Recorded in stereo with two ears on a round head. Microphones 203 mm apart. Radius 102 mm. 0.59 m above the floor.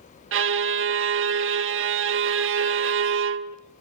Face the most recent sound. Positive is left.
turn(degrees=-55)  # may be behind; listen again after turning